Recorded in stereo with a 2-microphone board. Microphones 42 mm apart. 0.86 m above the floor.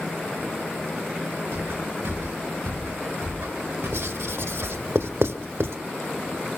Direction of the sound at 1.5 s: 75° right (ahead or behind).